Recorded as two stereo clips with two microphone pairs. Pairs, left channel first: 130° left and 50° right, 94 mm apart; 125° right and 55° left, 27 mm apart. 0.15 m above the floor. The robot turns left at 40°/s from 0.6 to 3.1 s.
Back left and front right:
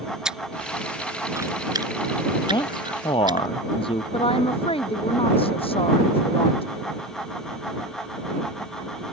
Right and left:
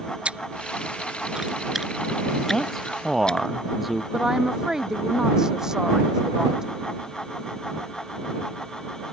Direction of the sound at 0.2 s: 30° left.